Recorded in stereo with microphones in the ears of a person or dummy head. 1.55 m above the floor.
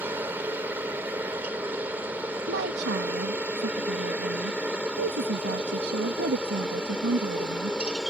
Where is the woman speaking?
65° right (ahead or behind).